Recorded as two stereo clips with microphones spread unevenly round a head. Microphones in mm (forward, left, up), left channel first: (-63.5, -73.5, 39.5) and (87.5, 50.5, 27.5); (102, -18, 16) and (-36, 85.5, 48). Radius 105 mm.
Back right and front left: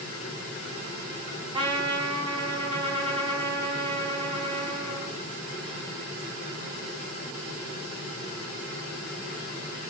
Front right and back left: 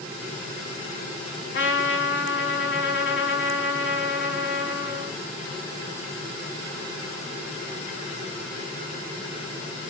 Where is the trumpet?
25° right, 5.5 m.